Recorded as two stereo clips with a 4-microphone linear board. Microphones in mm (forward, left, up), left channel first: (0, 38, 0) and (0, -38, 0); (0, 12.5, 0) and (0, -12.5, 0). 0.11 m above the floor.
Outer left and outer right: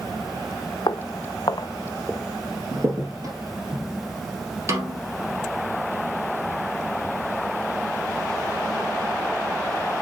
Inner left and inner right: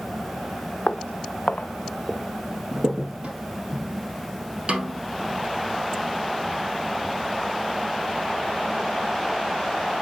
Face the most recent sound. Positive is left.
turn(degrees=-40)  # may be behind; listen again after turning